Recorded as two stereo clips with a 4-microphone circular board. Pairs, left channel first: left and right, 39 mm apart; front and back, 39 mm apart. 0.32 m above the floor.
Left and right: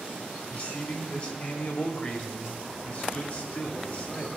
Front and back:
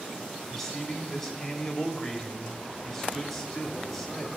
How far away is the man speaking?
About 1.0 m.